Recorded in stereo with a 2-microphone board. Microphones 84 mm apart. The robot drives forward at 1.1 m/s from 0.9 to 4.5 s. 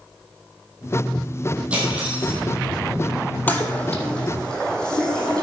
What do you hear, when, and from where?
1.7 s cutlery clinking: 15° right (ahead or behind), 4 m; by 2.4 s 20° right (ahead or behind), 3 m
3.5 s a toilet flushing: 20° left (ahead or behind), 1.1 m; by 5.4 s 10° left (ahead or behind), 2 m